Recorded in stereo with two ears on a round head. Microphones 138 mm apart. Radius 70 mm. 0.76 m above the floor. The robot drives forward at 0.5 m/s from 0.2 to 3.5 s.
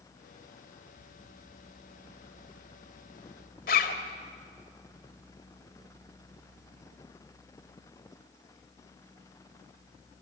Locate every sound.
3.7 s a zipper: 60° left (ahead or behind), 1.9 m